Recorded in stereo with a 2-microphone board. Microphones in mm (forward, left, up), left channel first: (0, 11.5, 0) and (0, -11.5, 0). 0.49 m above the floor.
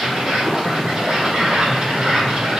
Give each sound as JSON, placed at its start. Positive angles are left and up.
{"t": 0.0, "sound": "an insect", "side_deg": -45, "distance_m": 2.0}